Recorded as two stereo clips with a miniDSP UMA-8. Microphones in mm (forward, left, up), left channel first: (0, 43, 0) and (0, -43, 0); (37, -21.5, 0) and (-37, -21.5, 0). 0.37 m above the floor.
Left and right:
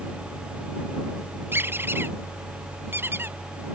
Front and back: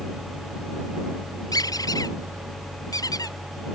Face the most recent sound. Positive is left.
turn(degrees=-30)